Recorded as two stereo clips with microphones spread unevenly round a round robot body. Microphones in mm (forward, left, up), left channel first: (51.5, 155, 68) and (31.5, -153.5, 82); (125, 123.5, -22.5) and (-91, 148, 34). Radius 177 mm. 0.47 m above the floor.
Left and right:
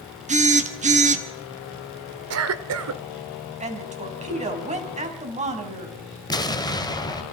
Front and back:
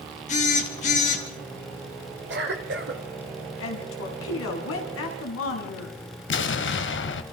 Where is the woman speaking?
25° right, 3.5 m.